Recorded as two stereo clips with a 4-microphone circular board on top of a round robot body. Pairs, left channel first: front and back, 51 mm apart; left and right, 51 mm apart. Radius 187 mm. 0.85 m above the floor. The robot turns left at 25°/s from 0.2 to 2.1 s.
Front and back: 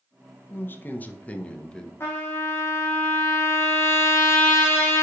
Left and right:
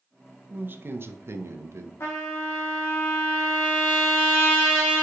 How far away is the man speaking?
About 0.7 m.